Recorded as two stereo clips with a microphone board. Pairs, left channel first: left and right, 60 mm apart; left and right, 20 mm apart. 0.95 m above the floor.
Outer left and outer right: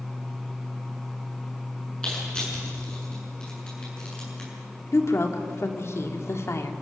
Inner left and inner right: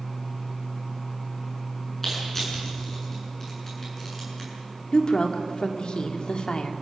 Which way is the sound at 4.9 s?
50° left (ahead or behind).